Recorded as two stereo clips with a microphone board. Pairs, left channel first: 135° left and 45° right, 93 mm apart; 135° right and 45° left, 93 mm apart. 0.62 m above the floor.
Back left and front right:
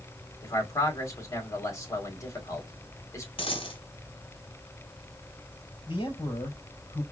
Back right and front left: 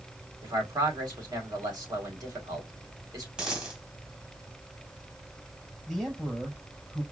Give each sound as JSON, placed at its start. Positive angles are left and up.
{"t": 0.4, "sound": "a man speaking", "azimuth_deg": 85, "distance_m": 1.9}
{"t": 3.4, "sound": "a dropped coin", "azimuth_deg": 125, "distance_m": 1.6}
{"t": 5.9, "sound": "a man speaking", "azimuth_deg": 135, "distance_m": 3.5}